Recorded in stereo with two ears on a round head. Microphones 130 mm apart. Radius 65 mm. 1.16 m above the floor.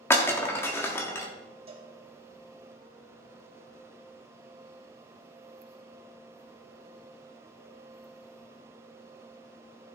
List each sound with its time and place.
0.1 s breaking glass: 15° left (ahead or behind), 1.3 m
1.7 s a cowbell: 35° right (ahead or behind), 2.5 m